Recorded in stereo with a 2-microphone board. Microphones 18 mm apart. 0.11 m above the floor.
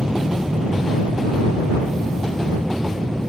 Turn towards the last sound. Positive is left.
turn(degrees=-40)  # may be behind; listen again after turning